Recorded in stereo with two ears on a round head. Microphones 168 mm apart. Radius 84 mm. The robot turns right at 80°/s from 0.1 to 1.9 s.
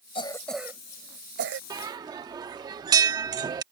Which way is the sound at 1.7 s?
20° right (ahead or behind).